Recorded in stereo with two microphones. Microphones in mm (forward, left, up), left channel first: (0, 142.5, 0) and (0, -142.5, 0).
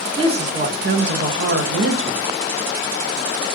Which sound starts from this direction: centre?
A woman speaking, at 0.2 s.